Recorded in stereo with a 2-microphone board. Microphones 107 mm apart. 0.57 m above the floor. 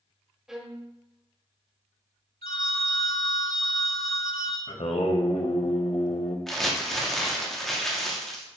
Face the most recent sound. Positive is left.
turn(degrees=5)  # may be behind; listen again after turning